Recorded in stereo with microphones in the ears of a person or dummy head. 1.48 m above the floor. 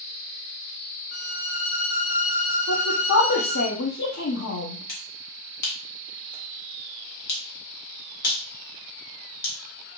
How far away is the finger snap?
About 1.3 m.